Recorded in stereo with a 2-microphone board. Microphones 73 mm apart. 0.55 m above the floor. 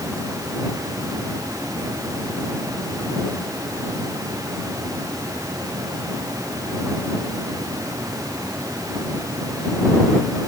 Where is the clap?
No clap in this recording.